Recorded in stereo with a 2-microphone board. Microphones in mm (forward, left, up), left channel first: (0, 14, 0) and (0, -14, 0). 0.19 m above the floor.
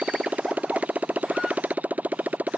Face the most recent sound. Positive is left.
turn(degrees=-65)  # may be behind; listen again after turning